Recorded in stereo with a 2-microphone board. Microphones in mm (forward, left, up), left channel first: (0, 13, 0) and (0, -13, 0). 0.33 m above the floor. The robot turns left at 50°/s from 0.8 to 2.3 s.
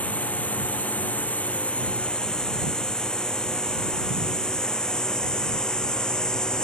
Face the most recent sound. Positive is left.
turn(degrees=30)  # may be behind; listen again after turning